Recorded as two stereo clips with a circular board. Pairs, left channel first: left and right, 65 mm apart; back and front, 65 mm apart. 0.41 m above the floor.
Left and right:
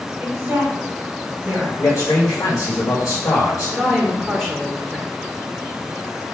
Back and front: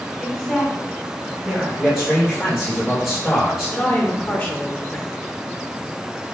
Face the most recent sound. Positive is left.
turn(degrees=-175)